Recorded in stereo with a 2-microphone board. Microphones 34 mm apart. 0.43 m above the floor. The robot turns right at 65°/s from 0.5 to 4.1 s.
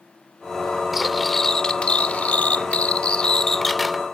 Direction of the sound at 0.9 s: 15° right.